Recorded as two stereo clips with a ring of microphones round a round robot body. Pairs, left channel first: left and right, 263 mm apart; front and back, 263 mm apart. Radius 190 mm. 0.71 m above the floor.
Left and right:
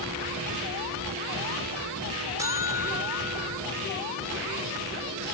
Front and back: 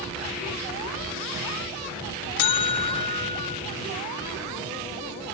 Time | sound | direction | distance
2.4 | a buzzer | 10° right | 1.0 m